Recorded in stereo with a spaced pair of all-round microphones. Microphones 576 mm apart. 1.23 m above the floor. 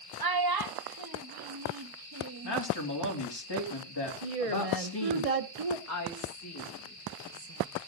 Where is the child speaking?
40° right (ahead or behind), 0.6 m.